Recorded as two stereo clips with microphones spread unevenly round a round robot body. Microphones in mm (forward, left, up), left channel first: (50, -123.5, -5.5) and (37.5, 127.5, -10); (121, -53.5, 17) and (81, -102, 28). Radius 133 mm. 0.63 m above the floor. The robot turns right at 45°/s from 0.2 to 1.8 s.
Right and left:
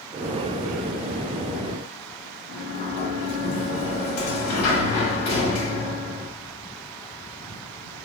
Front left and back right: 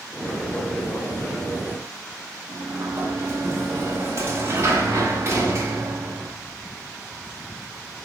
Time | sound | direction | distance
2.5 | a sliding door | 80° right | 1.1 m